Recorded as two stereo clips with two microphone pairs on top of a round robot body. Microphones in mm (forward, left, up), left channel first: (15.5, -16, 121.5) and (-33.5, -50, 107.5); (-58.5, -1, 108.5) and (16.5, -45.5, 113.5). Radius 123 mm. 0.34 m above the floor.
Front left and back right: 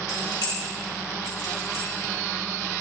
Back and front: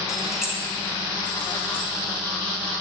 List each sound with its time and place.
0.1 s keys jangling: 55° left, 2 m; by 1.9 s 45° left, 3.5 m